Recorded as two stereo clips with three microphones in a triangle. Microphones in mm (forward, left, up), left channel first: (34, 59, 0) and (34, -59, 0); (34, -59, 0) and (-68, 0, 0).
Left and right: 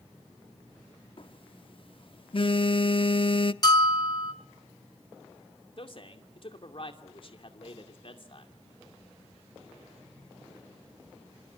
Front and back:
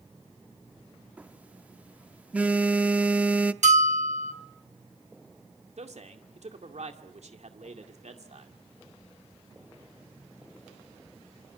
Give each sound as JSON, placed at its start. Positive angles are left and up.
{"t": 1.2, "sound": "a phone buzzing", "azimuth_deg": 75, "distance_m": 0.6}
{"t": 3.6, "sound": "a bell", "azimuth_deg": 145, "distance_m": 1.7}
{"t": 5.8, "sound": "a man speaking", "azimuth_deg": 130, "distance_m": 2.5}